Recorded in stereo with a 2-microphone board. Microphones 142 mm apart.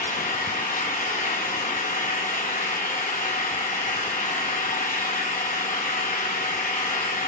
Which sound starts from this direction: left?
An engine running, at 0.0 s.